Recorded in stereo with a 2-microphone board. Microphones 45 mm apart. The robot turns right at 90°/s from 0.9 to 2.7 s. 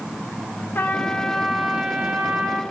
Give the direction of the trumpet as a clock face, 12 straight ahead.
8 o'clock.